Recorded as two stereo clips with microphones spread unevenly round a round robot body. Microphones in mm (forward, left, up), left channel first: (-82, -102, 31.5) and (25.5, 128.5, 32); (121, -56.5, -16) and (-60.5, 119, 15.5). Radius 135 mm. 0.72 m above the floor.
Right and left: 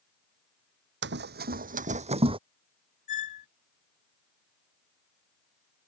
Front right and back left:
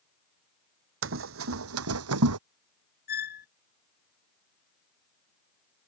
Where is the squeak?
100° right.